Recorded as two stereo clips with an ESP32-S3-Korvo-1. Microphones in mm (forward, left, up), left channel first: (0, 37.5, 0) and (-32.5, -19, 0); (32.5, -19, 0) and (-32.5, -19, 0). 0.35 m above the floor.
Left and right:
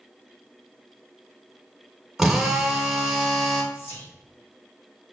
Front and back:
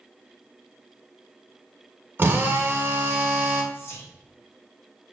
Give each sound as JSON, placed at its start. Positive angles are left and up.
{"t": 2.2, "sound": "a drill", "azimuth_deg": 160, "distance_m": 0.8}
{"t": 3.7, "sound": "whispering", "azimuth_deg": 20, "distance_m": 1.4}